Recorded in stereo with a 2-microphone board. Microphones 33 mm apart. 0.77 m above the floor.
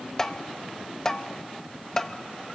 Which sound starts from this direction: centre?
Tapping, at 0.2 s.